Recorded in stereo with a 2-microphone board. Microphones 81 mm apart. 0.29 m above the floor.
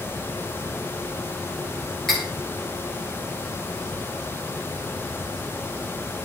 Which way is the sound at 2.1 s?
5° left (ahead or behind).